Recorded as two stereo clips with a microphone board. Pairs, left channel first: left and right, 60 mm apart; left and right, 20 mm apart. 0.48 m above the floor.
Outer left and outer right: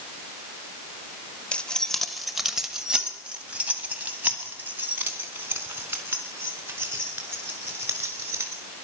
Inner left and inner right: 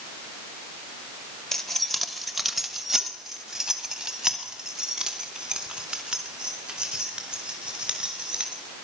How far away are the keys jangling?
About 1.0 m.